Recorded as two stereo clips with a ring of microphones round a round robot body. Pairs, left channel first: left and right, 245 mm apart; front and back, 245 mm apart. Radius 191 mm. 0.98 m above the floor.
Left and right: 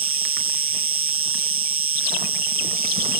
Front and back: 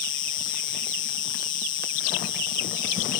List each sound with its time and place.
0.0 s an insect: 60° right